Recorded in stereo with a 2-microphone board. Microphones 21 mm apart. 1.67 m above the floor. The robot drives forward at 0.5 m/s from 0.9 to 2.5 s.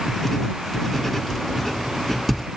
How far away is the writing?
About 0.8 m.